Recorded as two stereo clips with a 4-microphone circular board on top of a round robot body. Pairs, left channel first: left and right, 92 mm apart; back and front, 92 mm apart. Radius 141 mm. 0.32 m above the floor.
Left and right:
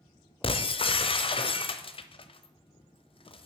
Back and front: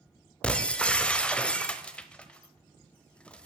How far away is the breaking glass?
About 1.0 m.